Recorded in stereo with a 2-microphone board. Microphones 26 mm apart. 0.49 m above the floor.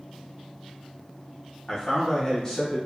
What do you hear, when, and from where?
1.7 s a man speaking: 25° left (ahead or behind), 1.0 m